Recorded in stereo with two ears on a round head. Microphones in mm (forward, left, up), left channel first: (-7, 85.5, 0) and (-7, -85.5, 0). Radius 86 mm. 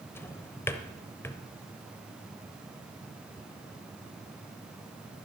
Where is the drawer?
15° left (ahead or behind), 0.9 m.